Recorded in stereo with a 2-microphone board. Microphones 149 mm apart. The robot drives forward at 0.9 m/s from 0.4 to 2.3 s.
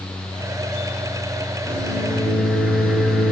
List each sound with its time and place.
1.7 s a microwave: centre (ahead or behind), 4.5 m